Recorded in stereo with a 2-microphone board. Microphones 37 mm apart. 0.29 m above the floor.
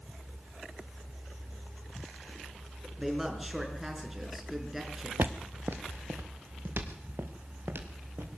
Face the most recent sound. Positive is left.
turn(degrees=-85)